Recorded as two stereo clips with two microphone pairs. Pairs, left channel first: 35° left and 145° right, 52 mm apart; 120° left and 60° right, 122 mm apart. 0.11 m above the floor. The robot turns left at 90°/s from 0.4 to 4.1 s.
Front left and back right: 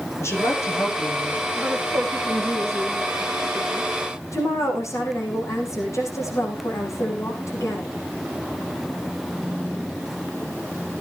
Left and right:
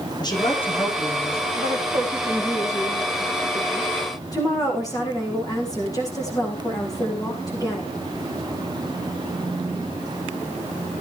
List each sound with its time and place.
0.2 s a woman speaking: 70° left, 6 m; by 1.4 s 25° right, 6 m
1.6 s a woman speaking: 70° right, 7 m; by 7.9 s 60° left, 7 m